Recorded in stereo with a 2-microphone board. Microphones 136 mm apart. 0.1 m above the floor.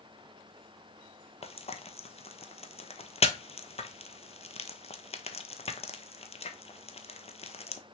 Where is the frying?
50° left (ahead or behind), 0.8 m.